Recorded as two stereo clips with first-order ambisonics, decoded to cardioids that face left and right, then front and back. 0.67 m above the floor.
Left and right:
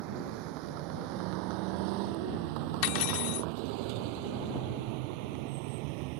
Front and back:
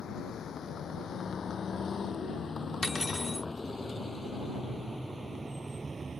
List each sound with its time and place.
0.0 s a vehicle: 65° right; by 6.2 s 105° right
2.8 s cutlery clinking: 85° left